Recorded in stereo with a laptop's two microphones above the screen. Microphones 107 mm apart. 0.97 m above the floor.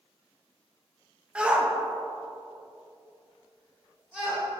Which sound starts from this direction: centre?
A shout, at 1.4 s.